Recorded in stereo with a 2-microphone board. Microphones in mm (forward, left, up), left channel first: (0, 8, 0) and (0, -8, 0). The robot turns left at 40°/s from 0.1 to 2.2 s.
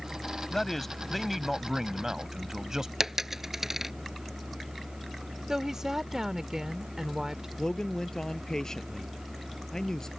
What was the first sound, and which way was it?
A man speaking, 30° left.